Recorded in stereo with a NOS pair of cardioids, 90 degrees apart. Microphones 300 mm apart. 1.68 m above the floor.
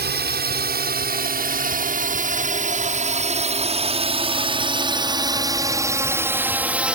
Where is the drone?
35° right; by 7.0 s 5° right.